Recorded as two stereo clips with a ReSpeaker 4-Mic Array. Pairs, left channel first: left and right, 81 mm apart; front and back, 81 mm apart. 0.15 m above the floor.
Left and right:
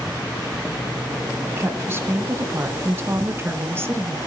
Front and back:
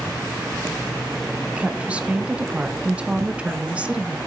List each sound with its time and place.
1.6 s a woman speaking: 120° right, 1.2 m